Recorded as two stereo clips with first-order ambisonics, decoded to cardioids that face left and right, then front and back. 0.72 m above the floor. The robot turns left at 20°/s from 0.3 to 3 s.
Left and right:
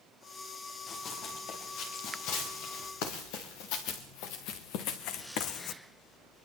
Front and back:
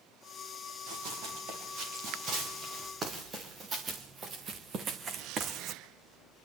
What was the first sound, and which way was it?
Running footsteps, 150° left.